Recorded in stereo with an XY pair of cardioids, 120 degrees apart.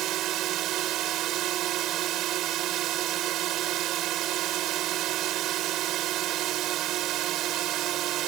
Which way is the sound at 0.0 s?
70° right.